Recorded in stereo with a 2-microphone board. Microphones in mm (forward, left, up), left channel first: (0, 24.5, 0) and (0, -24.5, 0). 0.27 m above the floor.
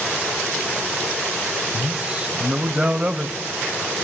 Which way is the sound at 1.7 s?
25° right (ahead or behind).